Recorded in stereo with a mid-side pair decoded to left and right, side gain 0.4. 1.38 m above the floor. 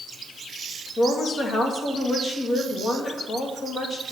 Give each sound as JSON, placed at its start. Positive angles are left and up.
{"t": 1.0, "sound": "a woman speaking", "azimuth_deg": 50, "distance_m": 2.5}